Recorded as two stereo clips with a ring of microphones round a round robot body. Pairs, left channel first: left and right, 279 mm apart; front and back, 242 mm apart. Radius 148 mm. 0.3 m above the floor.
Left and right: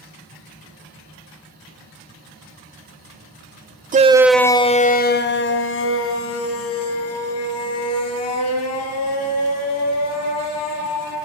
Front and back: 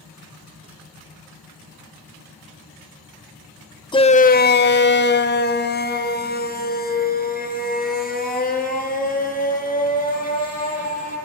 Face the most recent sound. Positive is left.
turn(degrees=55)